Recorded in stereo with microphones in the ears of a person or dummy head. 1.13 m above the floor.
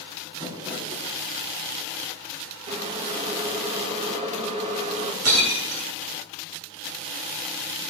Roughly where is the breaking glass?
Right.